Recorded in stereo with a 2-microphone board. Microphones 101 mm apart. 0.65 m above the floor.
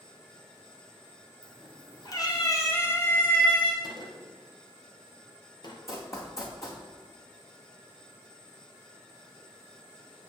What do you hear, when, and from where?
1.4 s a cat meowing: 50° left (ahead or behind), 2.5 m; by 3.7 s 10° left (ahead or behind), 1.6 m
3.8 s a gunshot: 45° left (ahead or behind), 3 m
5.9 s running footsteps: 30° left (ahead or behind), 2.5 m